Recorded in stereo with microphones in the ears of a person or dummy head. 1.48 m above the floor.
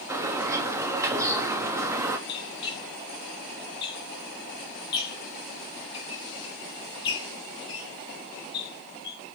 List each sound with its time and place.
0.1 s a bird: 15° right (ahead or behind), 0.6 m
2.3 s a squeak: 30° left (ahead or behind), 1.9 m